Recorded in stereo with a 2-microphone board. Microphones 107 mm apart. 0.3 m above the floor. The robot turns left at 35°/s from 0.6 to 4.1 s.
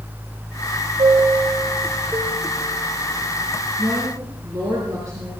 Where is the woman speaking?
45° right (ahead or behind), 5 m; by 5.3 s 35° right (ahead or behind), 5 m.